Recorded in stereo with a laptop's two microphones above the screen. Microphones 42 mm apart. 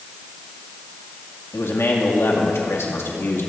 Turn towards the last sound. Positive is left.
turn(degrees=75)  # may be behind; listen again after turning